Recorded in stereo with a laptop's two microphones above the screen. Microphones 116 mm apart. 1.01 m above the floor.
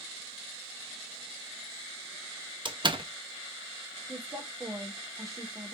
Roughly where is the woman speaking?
Right.